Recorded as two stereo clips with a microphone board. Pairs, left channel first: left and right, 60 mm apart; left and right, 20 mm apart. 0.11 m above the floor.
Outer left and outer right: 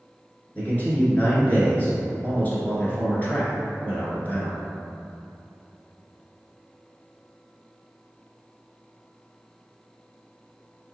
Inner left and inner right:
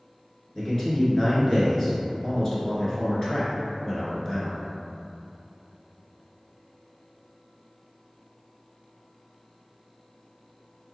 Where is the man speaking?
30° left (ahead or behind), 1.2 m.